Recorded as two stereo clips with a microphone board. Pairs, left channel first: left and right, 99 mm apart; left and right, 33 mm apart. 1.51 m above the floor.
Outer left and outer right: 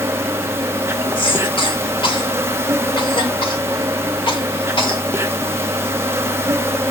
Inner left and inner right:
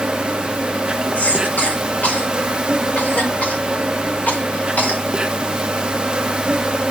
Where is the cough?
55° left (ahead or behind), 2 m.